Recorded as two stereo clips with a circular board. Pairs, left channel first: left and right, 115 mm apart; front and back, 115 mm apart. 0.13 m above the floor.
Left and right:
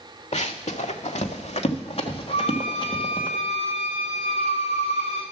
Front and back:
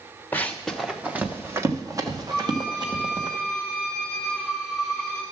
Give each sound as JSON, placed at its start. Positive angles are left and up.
{"t": 0.3, "sound": "running footsteps", "azimuth_deg": 75, "distance_m": 0.9}
{"t": 2.3, "sound": "a violin", "azimuth_deg": 100, "distance_m": 2.5}